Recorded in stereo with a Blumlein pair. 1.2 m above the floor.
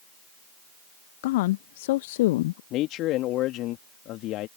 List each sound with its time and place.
1.2 s a woman speaking: 50° left
2.7 s a man speaking: 35° left